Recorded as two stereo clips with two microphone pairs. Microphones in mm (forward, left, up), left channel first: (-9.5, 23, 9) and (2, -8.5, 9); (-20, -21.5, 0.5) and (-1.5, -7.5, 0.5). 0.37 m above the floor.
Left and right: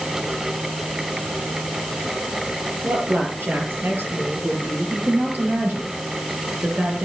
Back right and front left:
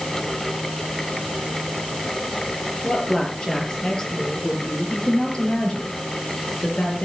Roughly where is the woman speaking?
Right.